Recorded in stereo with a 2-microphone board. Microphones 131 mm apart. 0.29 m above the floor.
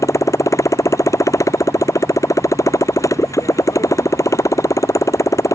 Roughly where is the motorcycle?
Left.